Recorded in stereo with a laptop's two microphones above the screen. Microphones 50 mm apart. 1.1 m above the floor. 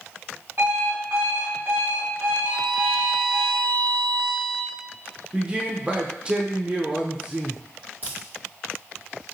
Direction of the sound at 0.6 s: 50° right (ahead or behind).